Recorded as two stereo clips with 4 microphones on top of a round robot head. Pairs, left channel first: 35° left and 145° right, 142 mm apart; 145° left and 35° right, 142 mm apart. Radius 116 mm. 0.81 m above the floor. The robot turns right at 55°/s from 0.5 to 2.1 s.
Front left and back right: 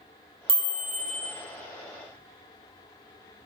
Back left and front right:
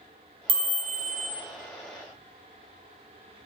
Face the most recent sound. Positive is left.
turn(degrees=0)